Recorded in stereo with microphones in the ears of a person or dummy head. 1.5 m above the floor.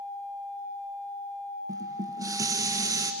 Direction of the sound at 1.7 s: 15° right (ahead or behind).